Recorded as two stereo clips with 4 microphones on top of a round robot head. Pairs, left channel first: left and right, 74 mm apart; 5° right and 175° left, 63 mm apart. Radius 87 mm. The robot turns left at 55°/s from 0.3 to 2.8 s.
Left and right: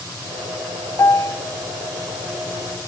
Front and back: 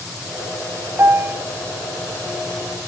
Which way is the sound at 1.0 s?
135° left.